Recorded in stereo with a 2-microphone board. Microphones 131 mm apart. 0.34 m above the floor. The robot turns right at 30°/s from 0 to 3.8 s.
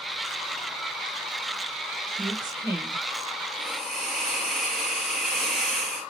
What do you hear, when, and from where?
2.2 s a woman speaking: 35° right (ahead or behind), 1.2 m; by 3.0 s 20° right (ahead or behind), 1.2 m
3.6 s a hiss: 5° right (ahead or behind), 3 m; by 6.1 s centre (ahead or behind), 3 m